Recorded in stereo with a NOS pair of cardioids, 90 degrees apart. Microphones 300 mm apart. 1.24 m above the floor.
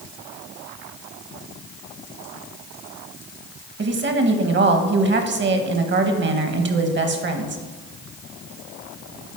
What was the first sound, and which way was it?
A woman speaking, 40° right.